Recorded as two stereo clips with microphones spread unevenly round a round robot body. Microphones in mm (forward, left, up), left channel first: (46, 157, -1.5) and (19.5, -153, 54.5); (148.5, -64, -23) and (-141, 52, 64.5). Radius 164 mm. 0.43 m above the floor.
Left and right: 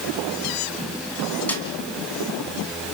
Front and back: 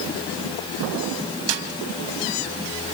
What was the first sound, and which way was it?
A snare drum, 165° left.